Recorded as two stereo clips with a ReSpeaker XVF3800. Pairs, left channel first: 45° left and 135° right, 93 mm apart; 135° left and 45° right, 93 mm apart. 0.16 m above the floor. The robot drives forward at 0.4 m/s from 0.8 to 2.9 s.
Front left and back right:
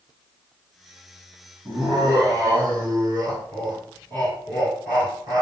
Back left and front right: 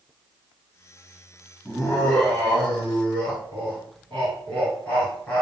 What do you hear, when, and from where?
1.6 s laughter: 145° right, 1.6 m; by 5.4 s 155° right, 1.9 m